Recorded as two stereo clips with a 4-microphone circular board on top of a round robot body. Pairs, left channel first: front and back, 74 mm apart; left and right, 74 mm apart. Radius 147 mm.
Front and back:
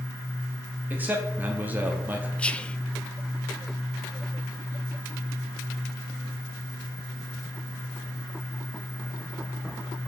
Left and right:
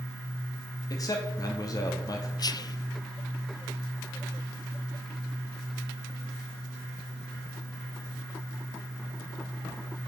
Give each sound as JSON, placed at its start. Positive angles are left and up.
{"t": 0.9, "sound": "a man speaking", "azimuth_deg": 115, "distance_m": 1.6}
{"t": 2.4, "sound": "whispering", "azimuth_deg": 75, "distance_m": 0.8}